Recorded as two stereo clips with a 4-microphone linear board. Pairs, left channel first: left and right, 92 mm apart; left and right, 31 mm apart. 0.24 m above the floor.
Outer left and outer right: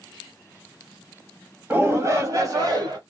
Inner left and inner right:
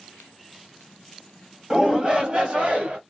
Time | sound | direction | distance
1.7 | a shout | 25° right (ahead or behind) | 1.0 m